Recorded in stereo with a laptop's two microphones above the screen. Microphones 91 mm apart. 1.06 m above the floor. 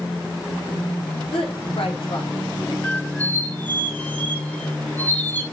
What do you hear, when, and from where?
1.3 s a woman speaking: 85° left, 3 m; by 2.7 s 70° left (ahead or behind), 3 m
2.8 s a squeak: 15° left (ahead or behind), 1.0 m